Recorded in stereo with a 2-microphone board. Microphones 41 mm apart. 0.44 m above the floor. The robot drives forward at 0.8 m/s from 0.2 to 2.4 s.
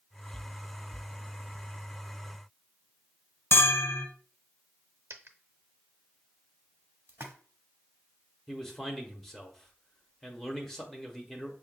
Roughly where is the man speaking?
Centre.